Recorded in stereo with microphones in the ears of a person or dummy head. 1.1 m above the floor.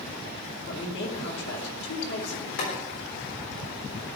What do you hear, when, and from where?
0.7 s a man speaking: 70° left (ahead or behind), 2.5 m
2.6 s boiling: 70° left (ahead or behind), 4 m